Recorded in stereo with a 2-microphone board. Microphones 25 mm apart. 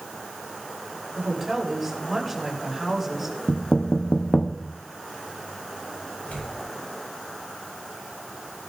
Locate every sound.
1.1 s a woman speaking: 5° right (ahead or behind), 5.5 m
3.5 s knocking: 55° left (ahead or behind), 0.9 m
6.2 s tearing paper: 80° left, 8 m